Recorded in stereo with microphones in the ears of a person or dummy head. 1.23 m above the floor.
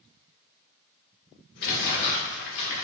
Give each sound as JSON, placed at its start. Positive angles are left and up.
{"t": 1.6, "sound": "crumpling", "side_deg": 55, "distance_m": 0.9}